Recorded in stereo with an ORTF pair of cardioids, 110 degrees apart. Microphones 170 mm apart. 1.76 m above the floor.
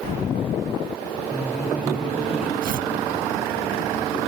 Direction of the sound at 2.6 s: 55° right.